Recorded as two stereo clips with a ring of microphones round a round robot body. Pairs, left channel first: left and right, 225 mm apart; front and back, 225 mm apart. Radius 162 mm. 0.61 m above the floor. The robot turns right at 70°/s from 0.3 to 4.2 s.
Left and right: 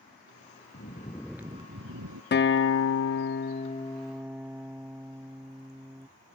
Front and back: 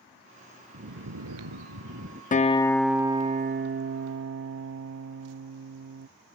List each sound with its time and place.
0.7 s snoring: 140° left; by 2.2 s 120° right
2.3 s a guitar: 55° left; by 6.1 s 175° right